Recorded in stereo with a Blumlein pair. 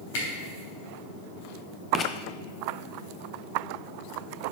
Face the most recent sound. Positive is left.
turn(degrees=25)